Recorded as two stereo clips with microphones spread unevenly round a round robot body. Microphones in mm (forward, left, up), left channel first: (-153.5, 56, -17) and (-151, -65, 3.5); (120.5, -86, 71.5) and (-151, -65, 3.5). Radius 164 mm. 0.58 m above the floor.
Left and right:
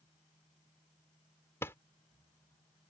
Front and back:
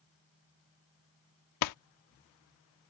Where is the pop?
20° left.